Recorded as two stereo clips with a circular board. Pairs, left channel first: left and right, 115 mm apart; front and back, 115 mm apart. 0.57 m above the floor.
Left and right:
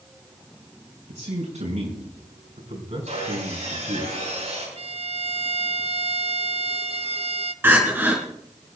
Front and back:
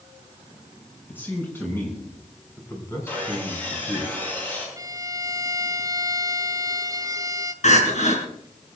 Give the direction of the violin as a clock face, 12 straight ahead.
4 o'clock.